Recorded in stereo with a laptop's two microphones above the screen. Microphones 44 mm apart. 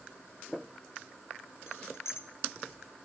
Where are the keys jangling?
70° left (ahead or behind), 0.7 m.